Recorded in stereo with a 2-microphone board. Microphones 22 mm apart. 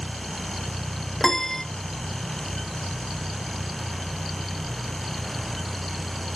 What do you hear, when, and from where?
1.2 s a piano: 15° left (ahead or behind), 0.6 m